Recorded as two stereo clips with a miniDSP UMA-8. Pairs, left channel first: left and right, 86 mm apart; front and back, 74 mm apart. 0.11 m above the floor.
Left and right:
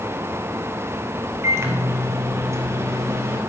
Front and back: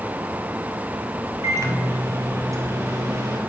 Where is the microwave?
140° right, 2 m.